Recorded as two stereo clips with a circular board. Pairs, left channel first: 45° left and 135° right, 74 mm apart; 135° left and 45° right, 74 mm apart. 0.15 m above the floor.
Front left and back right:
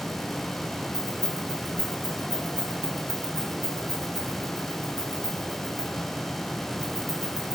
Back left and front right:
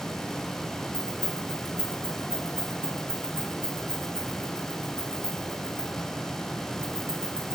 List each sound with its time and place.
0.9 s keys jangling: 20° left, 6 m